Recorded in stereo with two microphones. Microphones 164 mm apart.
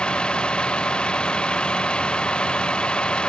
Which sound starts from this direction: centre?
A vehicle, at 0.0 s.